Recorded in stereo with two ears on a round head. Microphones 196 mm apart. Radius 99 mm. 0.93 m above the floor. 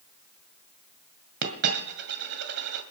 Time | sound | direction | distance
1.4 | a dropped coin | 50° right (ahead or behind) | 1.9 m